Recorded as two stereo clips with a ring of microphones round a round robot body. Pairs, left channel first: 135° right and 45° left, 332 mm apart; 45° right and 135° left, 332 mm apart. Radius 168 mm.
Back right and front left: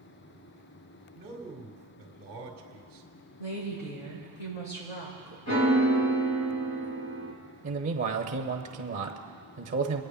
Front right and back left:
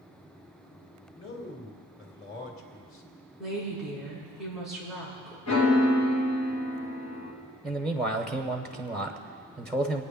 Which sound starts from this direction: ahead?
A man speaking, at 1.1 s.